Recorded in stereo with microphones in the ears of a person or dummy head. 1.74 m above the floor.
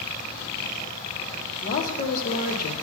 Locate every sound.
1.6 s a woman speaking: 45° left (ahead or behind), 1.3 m